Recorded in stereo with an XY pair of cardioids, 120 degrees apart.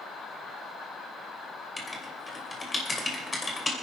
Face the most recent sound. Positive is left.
turn(degrees=20)